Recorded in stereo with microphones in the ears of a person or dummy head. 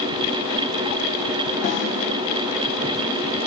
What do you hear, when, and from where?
1.6 s a snare drum: 45° left (ahead or behind), 3.5 m